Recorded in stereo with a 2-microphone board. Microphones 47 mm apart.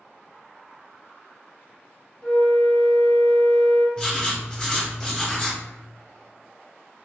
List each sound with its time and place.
2.2 s a flute: 15° left (ahead or behind), 0.9 m
4.0 s writing: 20° left (ahead or behind), 1.5 m